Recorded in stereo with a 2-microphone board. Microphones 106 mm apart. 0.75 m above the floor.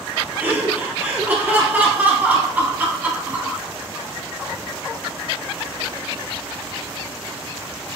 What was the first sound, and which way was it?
Laughter, 15° right (ahead or behind).